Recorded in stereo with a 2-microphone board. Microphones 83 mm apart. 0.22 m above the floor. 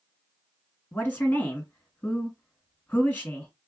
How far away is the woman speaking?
About 2 m.